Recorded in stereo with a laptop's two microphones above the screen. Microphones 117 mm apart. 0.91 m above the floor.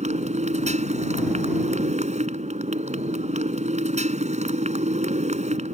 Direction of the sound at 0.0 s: 85° right.